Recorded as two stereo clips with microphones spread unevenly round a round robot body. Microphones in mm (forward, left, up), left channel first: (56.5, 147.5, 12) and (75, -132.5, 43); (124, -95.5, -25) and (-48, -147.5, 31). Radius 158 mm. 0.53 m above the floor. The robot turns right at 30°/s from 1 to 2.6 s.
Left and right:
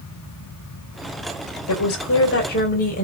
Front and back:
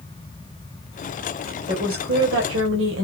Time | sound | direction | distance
1.7 | a woman speaking | 125° left | 2.5 m